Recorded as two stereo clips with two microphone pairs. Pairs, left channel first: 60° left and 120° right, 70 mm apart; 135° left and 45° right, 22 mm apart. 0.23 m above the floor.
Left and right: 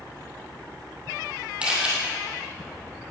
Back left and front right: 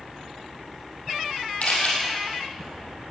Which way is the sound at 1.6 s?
165° left.